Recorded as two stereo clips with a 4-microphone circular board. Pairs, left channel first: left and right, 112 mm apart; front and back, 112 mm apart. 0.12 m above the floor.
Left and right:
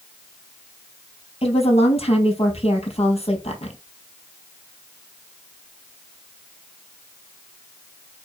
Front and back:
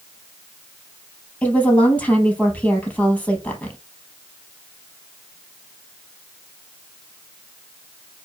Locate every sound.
1.4 s a woman speaking: 75° left, 3.5 m